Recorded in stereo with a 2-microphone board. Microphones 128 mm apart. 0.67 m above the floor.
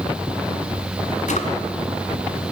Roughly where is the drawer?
Left.